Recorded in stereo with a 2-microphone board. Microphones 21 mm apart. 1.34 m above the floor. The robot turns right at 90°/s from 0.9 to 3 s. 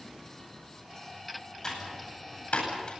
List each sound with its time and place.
1.6 s typing on a keyboard: 25° left (ahead or behind), 9.5 m; by 2.9 s 40° left (ahead or behind), 9.5 m